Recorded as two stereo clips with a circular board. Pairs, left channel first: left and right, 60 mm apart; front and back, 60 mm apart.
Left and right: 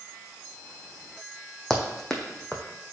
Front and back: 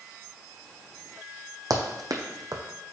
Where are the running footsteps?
170° left, 1.0 m.